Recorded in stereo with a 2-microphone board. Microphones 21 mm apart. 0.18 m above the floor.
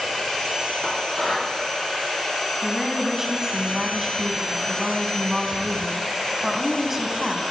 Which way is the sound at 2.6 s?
15° right (ahead or behind).